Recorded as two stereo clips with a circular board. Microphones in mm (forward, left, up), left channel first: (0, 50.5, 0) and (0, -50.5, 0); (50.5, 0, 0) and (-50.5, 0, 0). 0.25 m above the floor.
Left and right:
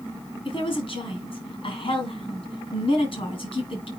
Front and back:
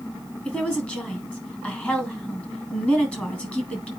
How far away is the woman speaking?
About 2.5 m.